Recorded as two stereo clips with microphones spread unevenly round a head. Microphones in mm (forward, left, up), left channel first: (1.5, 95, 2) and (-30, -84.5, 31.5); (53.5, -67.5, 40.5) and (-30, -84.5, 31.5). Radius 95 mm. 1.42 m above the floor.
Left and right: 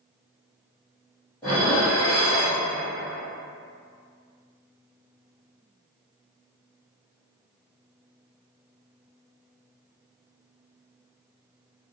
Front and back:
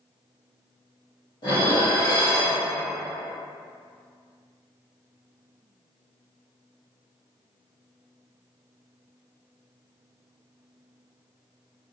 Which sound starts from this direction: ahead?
Dishes clattering, at 1.4 s.